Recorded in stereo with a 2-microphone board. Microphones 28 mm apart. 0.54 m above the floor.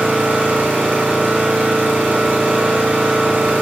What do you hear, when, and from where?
0.0 s an engine running: 85° right, 7 m